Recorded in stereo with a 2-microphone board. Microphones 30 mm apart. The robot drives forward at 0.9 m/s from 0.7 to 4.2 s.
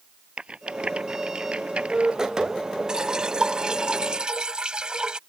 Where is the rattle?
35° right (ahead or behind); by 2.2 s 40° right (ahead or behind).